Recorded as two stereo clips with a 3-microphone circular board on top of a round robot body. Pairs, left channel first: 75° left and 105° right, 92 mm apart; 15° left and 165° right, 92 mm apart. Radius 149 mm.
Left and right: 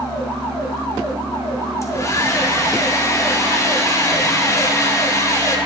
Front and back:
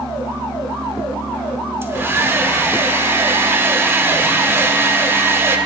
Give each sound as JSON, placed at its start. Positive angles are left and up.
{"t": 1.8, "sound": "a hair dryer", "azimuth_deg": 130, "distance_m": 1.0}